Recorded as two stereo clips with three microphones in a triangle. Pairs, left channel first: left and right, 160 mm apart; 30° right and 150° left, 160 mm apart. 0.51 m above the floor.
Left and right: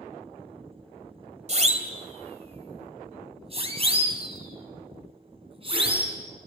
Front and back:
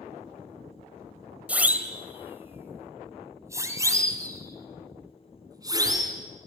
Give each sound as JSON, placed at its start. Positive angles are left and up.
{"t": 1.5, "sound": "a siren", "azimuth_deg": -130, "distance_m": 2.5}